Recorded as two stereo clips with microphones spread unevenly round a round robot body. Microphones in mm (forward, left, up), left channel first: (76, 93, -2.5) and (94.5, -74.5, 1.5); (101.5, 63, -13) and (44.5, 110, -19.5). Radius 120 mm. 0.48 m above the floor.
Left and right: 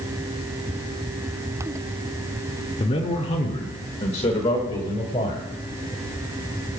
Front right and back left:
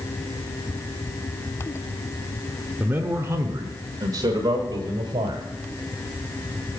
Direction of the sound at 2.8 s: 115° left.